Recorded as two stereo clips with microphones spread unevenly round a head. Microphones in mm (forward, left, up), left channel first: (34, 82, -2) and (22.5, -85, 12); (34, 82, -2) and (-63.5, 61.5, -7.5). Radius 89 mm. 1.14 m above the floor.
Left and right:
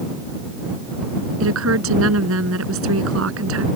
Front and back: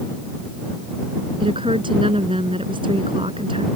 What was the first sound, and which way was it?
A woman speaking, 105° right.